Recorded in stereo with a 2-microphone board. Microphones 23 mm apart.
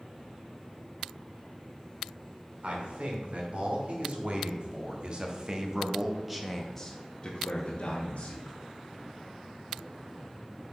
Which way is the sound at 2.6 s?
60° right (ahead or behind).